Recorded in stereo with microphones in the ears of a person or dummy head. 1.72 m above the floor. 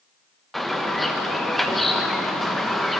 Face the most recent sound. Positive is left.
turn(degrees=0)  # may be behind; listen again after turning